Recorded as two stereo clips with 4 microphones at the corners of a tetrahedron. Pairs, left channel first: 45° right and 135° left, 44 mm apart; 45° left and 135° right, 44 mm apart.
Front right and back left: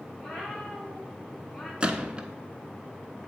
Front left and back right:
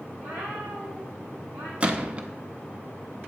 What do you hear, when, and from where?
0.2 s a cat meowing: 130° right, 3 m; by 1.7 s 115° right, 2.5 m
1.8 s a gunshot: 175° right, 0.5 m